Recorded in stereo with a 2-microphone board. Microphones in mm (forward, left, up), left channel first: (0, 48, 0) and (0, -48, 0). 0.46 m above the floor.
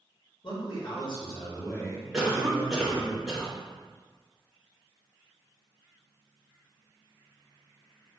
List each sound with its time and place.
0.4 s a man speaking: 60° left (ahead or behind), 1.4 m; by 3.1 s 10° left (ahead or behind), 2.5 m
2.1 s a cough: 5° right (ahead or behind), 1.0 m